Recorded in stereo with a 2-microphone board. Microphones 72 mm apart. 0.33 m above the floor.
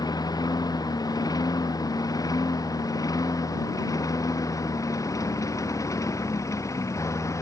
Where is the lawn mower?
70° left (ahead or behind); by 7.4 s 50° left (ahead or behind).